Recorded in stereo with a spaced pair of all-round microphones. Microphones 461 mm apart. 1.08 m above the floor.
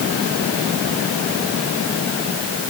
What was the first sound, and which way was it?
Only background noise.